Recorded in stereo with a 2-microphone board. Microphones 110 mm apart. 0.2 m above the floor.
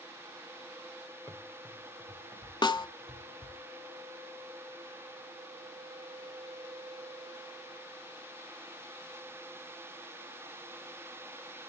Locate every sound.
1.3 s running footsteps: 20° left (ahead or behind), 2.5 m; by 3.6 s centre (ahead or behind), 3 m
2.6 s a snare drum: 45° left (ahead or behind), 0.5 m